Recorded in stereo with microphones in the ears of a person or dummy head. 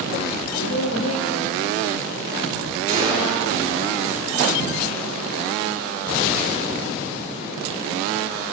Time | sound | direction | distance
0.6 | a woman speaking | 80° left | 1.6 m
2.9 | a gunshot | 40° right (ahead or behind) | 4.5 m